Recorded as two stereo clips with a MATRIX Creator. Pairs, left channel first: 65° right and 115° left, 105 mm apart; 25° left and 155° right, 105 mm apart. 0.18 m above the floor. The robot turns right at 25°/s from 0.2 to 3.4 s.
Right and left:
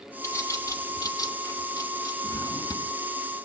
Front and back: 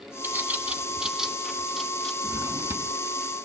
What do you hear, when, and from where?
0.2 s a bird: 100° right, 1.0 m; by 2.1 s 55° right, 1.0 m
2.2 s a drawer: 110° right, 0.8 m; by 2.9 s 95° right, 0.8 m